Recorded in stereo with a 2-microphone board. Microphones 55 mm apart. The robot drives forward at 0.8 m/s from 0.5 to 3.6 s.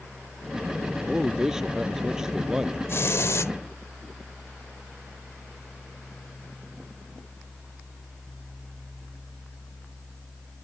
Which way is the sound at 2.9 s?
50° left (ahead or behind).